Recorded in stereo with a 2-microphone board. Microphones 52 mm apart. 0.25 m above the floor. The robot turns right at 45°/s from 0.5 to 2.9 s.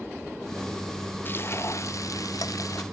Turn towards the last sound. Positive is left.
turn(degrees=115)